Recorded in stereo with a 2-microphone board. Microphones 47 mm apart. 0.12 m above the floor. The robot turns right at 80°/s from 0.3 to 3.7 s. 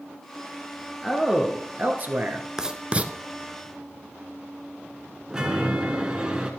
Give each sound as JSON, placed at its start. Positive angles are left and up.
{"t": 1.0, "sound": "a man speaking", "azimuth_deg": -175, "distance_m": 1.6}
{"t": 2.6, "sound": "writing", "side_deg": -15, "distance_m": 0.8}
{"t": 5.3, "sound": "a chime", "side_deg": -15, "distance_m": 1.7}